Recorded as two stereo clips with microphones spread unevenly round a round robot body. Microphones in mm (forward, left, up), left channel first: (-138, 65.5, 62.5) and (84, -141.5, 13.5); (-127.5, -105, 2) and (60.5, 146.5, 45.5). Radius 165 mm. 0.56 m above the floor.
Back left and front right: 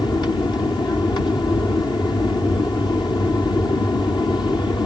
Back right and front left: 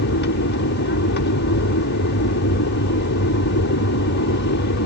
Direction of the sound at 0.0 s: 140° right.